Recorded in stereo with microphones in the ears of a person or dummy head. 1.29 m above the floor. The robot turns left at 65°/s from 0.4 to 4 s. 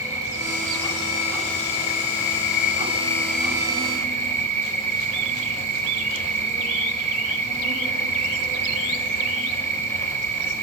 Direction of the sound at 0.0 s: 165° right.